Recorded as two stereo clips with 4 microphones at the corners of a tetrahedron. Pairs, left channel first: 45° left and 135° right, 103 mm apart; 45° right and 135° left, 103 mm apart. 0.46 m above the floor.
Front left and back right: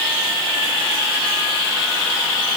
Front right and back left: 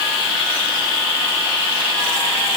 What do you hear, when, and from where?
Only background noise.